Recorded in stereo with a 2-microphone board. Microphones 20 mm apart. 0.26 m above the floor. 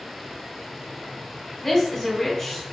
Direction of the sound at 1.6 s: 25° left (ahead or behind).